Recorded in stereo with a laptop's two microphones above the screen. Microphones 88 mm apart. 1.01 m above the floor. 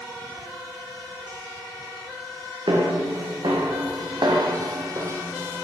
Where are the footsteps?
65° right (ahead or behind), 2.5 m; by 5.6 s 25° right (ahead or behind), 1.3 m.